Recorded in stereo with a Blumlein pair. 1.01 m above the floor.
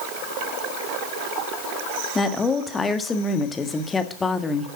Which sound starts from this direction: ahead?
A woman speaking, at 2.1 s.